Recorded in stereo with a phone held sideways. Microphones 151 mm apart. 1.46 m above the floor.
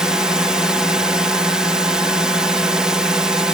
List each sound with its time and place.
0.0 s a drone: 5° right (ahead or behind)